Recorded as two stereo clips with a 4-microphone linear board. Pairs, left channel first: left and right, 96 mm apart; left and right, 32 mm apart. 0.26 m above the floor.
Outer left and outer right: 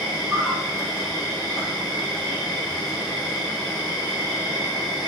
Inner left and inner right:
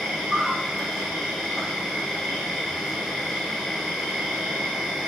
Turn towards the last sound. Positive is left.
turn(degrees=-5)  # may be behind; listen again after turning